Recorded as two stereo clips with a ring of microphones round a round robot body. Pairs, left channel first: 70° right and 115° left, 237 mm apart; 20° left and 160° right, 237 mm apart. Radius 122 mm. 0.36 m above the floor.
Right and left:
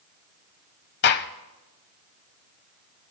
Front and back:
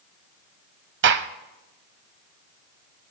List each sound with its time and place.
1.0 s a gunshot: 115° right, 0.8 m